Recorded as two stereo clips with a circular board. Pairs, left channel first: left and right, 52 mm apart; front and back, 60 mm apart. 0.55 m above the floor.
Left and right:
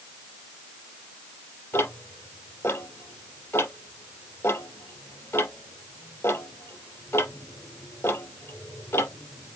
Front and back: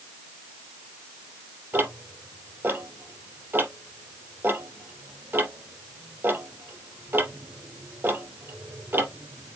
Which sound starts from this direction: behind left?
Ticking, at 1.7 s.